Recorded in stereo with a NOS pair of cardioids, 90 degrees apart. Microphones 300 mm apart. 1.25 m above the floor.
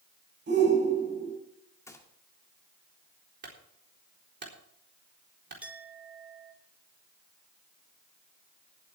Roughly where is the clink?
Ahead.